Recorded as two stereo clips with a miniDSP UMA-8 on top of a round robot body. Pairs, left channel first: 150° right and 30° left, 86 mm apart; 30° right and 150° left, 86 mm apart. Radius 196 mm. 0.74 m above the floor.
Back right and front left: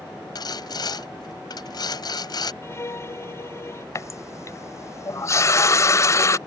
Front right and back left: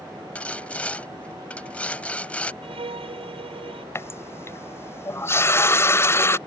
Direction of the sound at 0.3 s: 105° right.